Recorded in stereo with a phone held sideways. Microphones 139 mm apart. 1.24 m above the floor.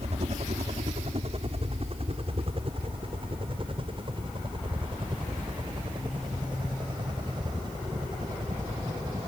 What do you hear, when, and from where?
0.0 s a helicopter: 50° right (ahead or behind); by 9.3 s 30° right (ahead or behind)